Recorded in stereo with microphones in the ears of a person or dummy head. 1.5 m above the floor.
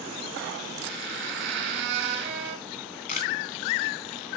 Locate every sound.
0.8 s a squeak: 65° right (ahead or behind), 3 m
2.7 s a camera shutter: 55° left (ahead or behind), 2.5 m